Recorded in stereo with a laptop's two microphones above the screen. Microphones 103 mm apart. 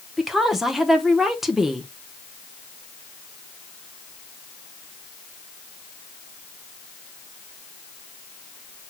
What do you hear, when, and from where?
0.2 s a woman speaking: 5° right (ahead or behind), 0.8 m